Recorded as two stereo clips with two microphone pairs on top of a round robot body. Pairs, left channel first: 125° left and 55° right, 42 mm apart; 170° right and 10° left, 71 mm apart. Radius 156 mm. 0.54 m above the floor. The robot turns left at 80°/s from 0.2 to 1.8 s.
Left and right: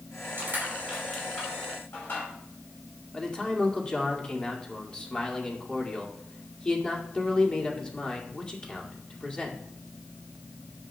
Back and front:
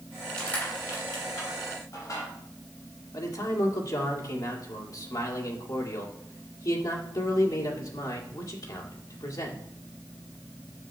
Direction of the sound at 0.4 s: 90° right.